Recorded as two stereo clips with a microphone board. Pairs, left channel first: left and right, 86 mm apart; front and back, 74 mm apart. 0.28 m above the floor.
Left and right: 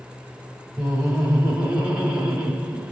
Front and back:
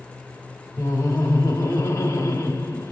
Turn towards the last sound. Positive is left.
turn(degrees=-10)